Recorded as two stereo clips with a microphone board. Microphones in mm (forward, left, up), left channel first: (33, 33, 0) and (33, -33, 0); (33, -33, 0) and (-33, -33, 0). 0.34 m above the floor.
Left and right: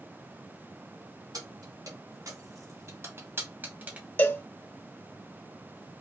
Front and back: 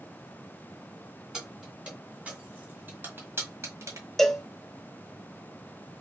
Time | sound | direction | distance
1.3 | keys jangling | 100° right | 2.5 m
4.2 | a cowbell | 80° left | 0.5 m